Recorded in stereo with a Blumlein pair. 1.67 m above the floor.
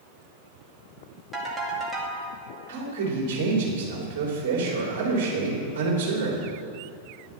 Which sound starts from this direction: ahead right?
A man speaking, at 2.7 s.